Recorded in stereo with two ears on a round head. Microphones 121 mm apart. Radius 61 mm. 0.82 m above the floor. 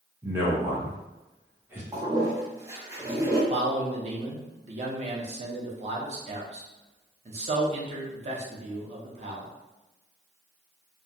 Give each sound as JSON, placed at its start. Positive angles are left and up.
{"t": 0.2, "sound": "a man speaking", "side_deg": -15, "distance_m": 0.9}
{"t": 1.9, "sound": "a toilet flushing", "side_deg": -20, "distance_m": 0.6}
{"t": 3.5, "sound": "a man speaking", "side_deg": -50, "distance_m": 0.7}